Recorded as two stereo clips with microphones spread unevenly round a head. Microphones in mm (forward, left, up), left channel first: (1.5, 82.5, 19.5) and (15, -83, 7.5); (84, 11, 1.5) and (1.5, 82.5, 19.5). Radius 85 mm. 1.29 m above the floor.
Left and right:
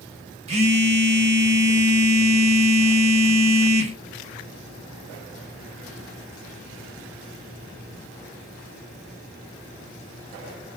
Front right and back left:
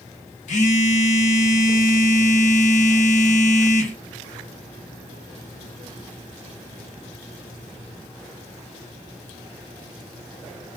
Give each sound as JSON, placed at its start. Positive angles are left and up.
{"t": 0.5, "sound": "a phone buzzing", "azimuth_deg": -30, "distance_m": 0.8}